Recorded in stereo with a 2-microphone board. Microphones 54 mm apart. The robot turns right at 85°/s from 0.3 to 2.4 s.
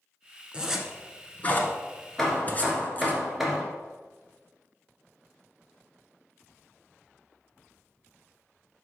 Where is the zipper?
20° right (ahead or behind), 1.1 m; by 3.2 s 30° left (ahead or behind), 1.1 m.